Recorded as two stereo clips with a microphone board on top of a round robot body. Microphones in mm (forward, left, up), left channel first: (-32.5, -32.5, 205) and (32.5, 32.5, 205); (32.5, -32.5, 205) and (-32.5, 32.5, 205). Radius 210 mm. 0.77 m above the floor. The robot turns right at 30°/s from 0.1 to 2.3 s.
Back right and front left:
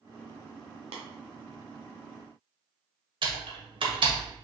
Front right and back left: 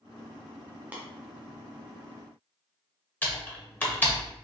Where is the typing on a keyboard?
25° left, 1.4 m.